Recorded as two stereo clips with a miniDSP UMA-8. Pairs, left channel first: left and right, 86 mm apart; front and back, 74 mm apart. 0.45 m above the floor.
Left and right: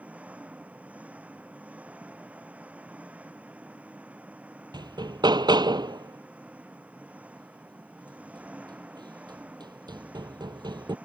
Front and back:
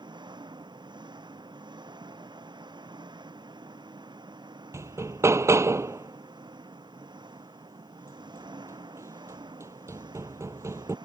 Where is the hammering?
130° right.